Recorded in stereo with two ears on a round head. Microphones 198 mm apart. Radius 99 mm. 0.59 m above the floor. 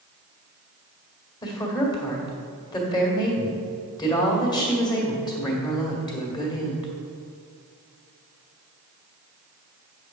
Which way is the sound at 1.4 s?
20° left (ahead or behind).